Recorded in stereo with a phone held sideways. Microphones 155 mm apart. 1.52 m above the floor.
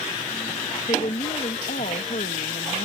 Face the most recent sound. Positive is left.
turn(degrees=80)